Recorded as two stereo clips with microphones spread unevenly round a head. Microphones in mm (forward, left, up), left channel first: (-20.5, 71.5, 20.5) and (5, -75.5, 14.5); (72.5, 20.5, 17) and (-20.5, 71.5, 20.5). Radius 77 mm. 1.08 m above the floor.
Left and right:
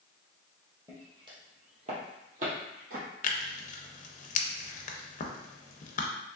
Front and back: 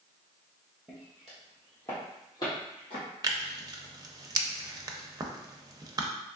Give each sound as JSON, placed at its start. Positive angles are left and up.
{"t": 0.9, "sound": "footsteps", "azimuth_deg": -140, "distance_m": 1.3}
{"t": 3.2, "sound": "tearing paper", "azimuth_deg": 105, "distance_m": 0.5}